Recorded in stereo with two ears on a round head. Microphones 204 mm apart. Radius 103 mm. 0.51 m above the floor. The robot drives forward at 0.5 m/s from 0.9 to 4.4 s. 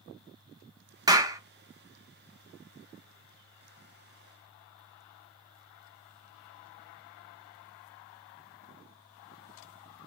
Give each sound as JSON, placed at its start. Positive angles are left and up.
{"t": 1.1, "sound": "a clap", "side_deg": -15, "distance_m": 0.6}